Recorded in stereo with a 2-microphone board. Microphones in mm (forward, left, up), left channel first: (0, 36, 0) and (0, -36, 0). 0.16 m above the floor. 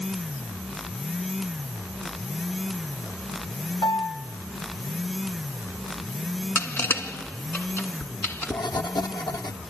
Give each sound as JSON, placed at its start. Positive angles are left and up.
{"t": 3.8, "sound": "a piano", "side_deg": 70, "distance_m": 3.0}
{"t": 6.5, "sound": "crushing", "side_deg": 30, "distance_m": 2.0}
{"t": 8.0, "sound": "writing", "side_deg": 80, "distance_m": 1.7}